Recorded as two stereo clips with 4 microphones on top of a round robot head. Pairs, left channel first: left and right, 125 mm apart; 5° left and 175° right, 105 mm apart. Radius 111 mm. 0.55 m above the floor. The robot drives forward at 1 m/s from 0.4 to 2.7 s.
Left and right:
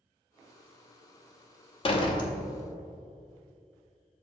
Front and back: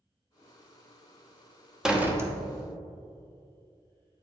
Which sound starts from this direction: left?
A door slam, at 1.8 s.